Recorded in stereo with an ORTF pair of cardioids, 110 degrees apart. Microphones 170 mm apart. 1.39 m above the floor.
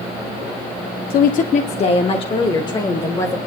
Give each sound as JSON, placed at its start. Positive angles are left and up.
{"t": 1.1, "sound": "a woman speaking", "azimuth_deg": 65, "distance_m": 0.7}